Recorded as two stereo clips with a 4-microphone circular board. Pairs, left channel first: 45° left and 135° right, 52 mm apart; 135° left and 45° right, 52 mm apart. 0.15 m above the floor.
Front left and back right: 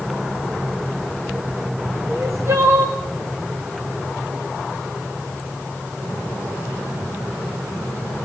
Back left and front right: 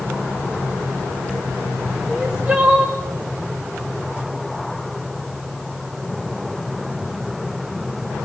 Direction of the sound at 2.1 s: 115° right.